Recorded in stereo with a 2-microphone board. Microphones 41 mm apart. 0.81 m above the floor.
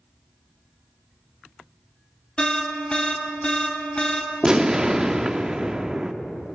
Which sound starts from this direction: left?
An alarm, at 2.4 s.